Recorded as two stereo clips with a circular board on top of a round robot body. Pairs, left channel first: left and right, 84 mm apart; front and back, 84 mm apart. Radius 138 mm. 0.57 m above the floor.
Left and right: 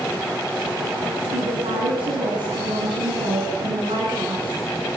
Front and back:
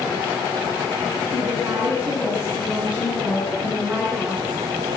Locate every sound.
1.3 s a woman speaking: 105° right, 6.5 m